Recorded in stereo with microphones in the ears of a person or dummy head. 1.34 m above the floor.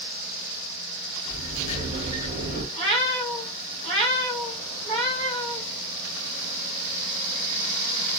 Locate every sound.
1.2 s a sliding door: 20° right (ahead or behind), 1.3 m
2.7 s a cat meowing: 35° right (ahead or behind), 1.6 m